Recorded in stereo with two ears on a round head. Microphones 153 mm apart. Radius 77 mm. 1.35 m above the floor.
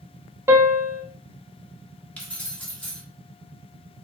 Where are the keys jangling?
10° left (ahead or behind), 1.4 m.